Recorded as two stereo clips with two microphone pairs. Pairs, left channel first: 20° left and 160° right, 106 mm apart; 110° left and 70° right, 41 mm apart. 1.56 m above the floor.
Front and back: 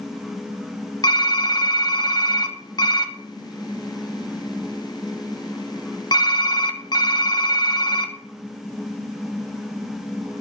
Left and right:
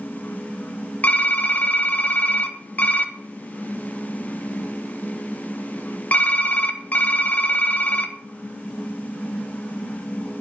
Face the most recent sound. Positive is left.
turn(degrees=65)